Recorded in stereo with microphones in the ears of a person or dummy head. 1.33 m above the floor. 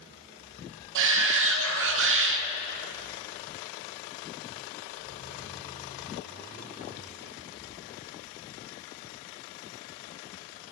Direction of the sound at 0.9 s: 65° right (ahead or behind).